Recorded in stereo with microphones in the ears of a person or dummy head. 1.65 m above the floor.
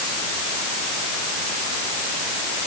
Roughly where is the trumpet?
No trumpet in this recording.